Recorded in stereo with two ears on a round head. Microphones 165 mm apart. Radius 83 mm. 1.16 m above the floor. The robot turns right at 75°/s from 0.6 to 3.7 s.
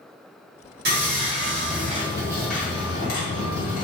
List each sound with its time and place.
0.8 s sawing: 120° right, 1.5 m; by 3.8 s 95° left, 1.5 m